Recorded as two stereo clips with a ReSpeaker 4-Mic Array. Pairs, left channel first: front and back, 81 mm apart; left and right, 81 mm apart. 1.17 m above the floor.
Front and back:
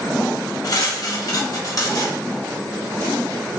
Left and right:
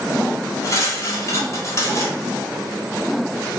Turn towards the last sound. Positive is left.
turn(degrees=40)